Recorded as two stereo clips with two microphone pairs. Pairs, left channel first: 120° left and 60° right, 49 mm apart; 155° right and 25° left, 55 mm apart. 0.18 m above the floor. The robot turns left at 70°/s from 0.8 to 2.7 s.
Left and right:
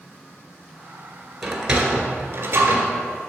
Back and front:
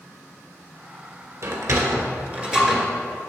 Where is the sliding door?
30° left, 1.4 m; by 2.9 s 60° right, 1.4 m.